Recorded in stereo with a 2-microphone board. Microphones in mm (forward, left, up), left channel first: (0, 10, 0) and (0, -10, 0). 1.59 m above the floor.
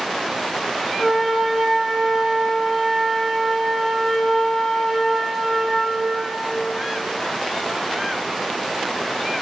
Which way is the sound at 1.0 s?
5° left (ahead or behind).